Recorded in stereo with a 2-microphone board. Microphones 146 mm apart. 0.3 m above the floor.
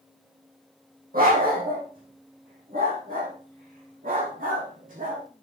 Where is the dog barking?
85° right, 5 m; by 5.2 s 70° right (ahead or behind), 7 m.